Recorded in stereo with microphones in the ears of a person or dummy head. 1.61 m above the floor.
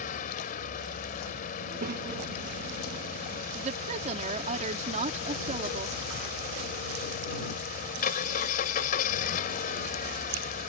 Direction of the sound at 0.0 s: 45° left (ahead or behind).